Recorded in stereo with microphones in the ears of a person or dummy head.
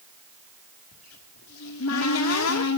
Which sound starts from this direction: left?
A cupboard door, at 0.9 s.